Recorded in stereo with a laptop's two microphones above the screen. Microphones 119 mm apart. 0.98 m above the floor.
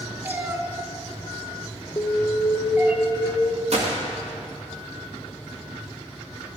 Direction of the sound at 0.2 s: 15° right (ahead or behind).